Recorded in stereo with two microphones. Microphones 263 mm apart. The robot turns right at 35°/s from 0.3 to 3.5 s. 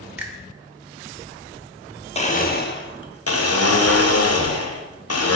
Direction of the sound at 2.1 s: 25° left.